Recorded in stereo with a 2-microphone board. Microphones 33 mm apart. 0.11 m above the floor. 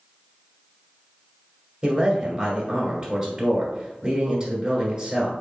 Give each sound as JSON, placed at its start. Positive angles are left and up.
{"t": 1.8, "sound": "a man speaking", "side_deg": -25, "distance_m": 1.9}